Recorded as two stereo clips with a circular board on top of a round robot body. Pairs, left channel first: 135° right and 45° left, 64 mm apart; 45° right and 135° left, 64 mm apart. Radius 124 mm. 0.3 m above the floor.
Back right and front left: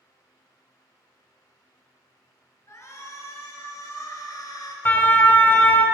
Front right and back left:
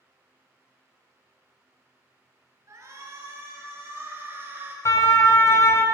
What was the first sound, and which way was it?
A shout, straight behind.